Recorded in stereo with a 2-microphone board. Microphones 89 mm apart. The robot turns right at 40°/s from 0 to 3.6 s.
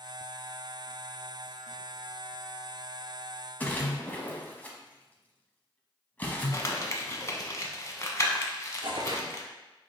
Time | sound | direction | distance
3.6 | a splash | 20° left (ahead or behind) | 0.7 m
6.5 | crumpling | 35° left (ahead or behind) | 0.7 m
8.8 | tearing paper | 65° right (ahead or behind) | 0.7 m